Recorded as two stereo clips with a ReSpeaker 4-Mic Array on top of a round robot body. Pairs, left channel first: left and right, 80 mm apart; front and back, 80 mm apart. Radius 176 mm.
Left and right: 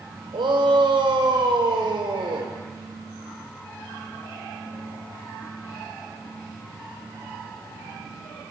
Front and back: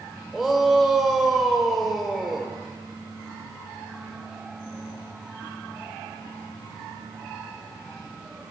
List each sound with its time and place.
0.3 s a shout: 95° right, 3 m